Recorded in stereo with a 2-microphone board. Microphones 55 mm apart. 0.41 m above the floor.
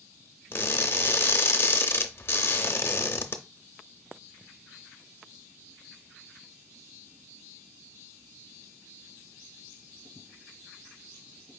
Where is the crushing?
45° left (ahead or behind), 0.5 m.